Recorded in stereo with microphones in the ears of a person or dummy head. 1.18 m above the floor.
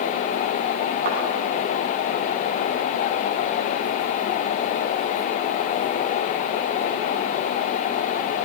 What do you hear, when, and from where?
1.1 s a thud: 50° right (ahead or behind), 7 m